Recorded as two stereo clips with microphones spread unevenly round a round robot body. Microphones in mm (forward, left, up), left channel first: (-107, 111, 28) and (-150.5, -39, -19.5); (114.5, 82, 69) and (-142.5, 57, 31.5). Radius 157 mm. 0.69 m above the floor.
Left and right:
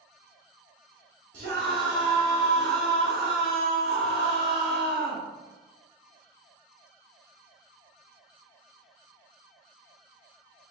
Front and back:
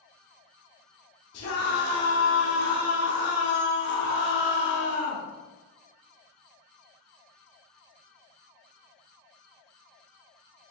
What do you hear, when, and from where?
1.3 s a scream: 50° right, 8 m